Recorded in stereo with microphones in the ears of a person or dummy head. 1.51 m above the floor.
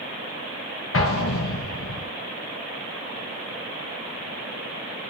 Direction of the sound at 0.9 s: 65° left (ahead or behind).